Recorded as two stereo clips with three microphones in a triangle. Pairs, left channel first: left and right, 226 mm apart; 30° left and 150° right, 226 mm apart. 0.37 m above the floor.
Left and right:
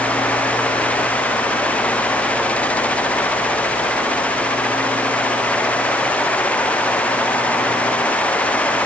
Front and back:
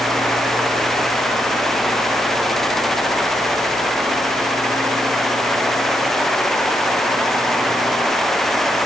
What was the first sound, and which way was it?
Only background noise.